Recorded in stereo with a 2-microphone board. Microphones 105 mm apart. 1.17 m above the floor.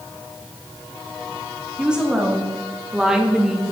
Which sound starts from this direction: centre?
A woman speaking, at 1.8 s.